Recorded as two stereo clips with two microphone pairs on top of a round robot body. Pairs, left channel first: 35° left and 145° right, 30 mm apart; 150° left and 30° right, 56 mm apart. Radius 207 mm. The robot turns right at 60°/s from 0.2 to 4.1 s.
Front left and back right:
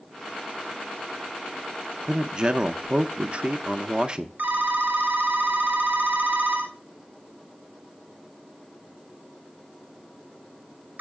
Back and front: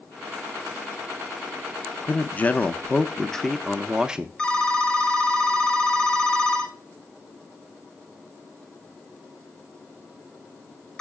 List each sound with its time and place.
2.0 s a man speaking: 145° left, 0.7 m; by 4.3 s 90° right, 0.7 m
4.4 s a phone ringing: 135° right, 1.2 m